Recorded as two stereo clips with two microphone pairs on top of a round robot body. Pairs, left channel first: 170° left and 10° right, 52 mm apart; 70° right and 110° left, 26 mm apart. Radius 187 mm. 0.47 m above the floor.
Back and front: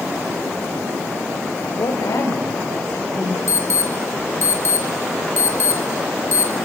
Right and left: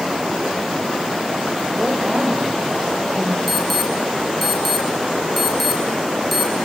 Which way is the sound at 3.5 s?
165° right.